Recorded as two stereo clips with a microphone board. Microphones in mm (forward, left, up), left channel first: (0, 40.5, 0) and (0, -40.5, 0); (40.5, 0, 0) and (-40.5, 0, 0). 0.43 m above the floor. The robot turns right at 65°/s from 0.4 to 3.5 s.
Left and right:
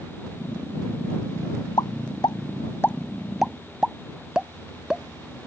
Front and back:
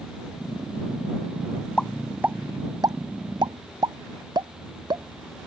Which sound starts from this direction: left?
A pop, at 1.8 s.